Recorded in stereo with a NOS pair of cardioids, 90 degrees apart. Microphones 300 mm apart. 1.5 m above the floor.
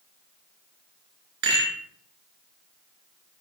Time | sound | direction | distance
1.4 | a rattle | 65° right | 3 m